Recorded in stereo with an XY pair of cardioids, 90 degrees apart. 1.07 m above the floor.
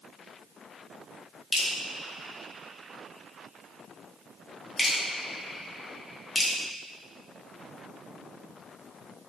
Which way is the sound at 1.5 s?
25° left.